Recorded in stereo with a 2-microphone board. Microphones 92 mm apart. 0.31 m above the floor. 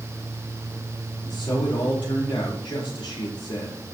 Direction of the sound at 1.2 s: 60° left (ahead or behind).